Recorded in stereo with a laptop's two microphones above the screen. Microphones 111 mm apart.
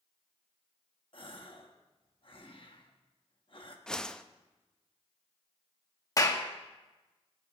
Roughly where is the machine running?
No machine running in this recording.